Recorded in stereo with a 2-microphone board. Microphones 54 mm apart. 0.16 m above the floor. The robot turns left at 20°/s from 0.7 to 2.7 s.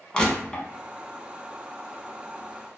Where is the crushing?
15° left (ahead or behind), 0.5 m.